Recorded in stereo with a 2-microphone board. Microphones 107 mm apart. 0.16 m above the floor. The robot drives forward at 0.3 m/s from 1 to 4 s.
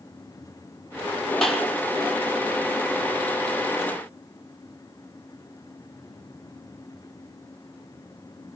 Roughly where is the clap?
Centre.